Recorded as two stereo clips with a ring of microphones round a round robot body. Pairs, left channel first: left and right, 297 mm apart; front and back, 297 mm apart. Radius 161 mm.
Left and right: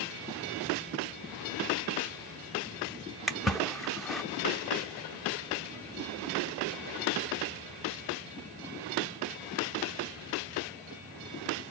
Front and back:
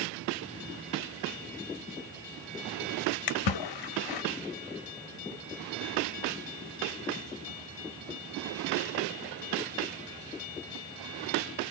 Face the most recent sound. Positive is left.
turn(degrees=0)